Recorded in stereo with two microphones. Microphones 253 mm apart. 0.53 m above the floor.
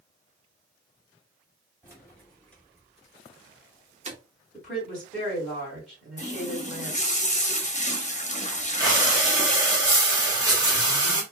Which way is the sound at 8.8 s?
15° right (ahead or behind).